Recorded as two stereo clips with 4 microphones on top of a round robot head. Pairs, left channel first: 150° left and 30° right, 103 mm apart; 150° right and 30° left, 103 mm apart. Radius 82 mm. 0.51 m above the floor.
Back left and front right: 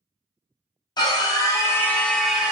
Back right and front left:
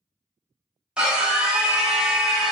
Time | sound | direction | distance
1.0 | a scream | 110° left | 1.1 m